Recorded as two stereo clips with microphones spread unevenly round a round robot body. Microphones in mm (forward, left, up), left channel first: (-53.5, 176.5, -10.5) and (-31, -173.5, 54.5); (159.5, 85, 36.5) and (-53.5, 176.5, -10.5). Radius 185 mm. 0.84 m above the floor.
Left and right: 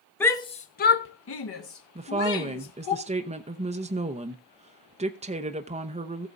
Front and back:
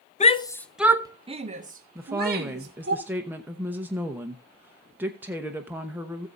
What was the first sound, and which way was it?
A shout, 30° left.